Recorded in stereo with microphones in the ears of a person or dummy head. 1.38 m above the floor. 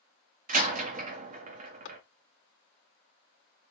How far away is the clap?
About 1.8 m.